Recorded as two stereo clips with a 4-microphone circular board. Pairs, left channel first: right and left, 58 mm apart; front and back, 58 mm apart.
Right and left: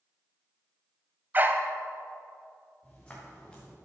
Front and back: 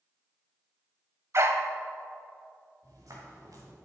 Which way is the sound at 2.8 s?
165° right.